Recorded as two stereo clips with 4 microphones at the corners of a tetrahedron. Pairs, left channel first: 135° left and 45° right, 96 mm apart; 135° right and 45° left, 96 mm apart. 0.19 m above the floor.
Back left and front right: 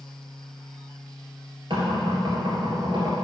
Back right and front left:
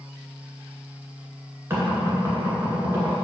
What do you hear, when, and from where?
1.7 s knocking: 20° right, 2 m